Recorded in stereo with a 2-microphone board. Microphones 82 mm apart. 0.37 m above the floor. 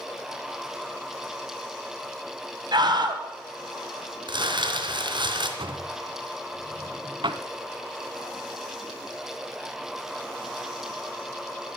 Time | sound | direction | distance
2.7 | a scream | 60° right (ahead or behind) | 1.8 m
4.3 | crumpling | 70° right (ahead or behind) | 3 m
5.6 | a drawer | 85° right | 1.0 m